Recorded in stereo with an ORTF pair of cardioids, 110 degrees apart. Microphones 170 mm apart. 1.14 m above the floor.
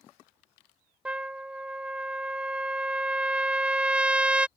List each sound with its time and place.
1.1 s a trumpet: 5° right